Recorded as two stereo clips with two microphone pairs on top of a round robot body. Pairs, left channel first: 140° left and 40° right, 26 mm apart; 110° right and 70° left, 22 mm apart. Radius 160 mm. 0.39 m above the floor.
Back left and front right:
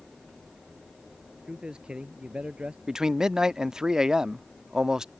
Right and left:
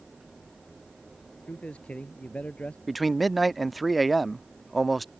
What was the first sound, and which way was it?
A man speaking, 100° right.